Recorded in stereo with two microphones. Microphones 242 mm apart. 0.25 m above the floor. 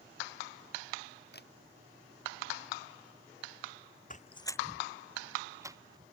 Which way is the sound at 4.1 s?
35° left (ahead or behind).